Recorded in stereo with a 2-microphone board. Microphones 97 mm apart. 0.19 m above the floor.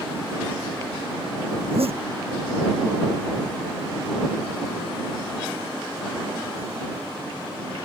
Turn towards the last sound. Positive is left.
turn(degrees=-85)